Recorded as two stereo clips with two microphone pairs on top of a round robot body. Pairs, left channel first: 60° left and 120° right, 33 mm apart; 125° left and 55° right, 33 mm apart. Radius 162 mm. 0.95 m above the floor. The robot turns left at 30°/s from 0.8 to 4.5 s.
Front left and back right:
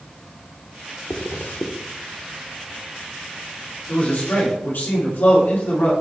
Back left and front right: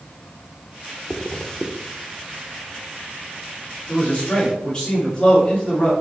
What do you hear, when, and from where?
1.1 s a zipper: 60° left, 0.7 m; by 1.7 s 45° left, 0.7 m
3.9 s a man speaking: 75° left, 2 m; by 5.9 s 60° left, 2 m